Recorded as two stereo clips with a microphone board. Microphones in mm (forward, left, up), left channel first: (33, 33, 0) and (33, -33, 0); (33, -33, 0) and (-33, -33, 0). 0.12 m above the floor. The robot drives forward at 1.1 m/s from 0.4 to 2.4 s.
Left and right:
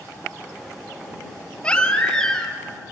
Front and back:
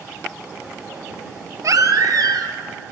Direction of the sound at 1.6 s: 160° left.